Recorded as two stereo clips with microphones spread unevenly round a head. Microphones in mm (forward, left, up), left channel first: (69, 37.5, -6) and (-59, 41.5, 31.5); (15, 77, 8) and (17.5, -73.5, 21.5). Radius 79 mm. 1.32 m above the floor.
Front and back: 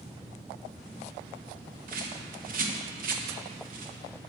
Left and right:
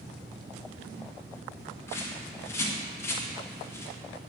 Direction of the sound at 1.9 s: 165° left.